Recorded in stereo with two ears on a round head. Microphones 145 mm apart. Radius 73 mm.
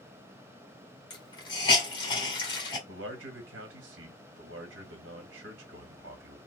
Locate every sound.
1.1 s a hiss: 30° left (ahead or behind), 1.7 m
2.9 s a man speaking: 85° right, 1.4 m